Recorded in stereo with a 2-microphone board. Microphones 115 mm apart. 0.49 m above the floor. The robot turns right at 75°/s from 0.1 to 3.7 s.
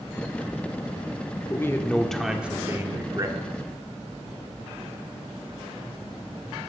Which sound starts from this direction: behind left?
A man speaking, at 1.5 s.